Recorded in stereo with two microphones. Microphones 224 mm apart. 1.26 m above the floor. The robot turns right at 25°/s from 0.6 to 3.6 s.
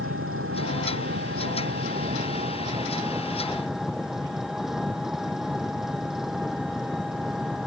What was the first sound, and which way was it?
An engine running, 75° right.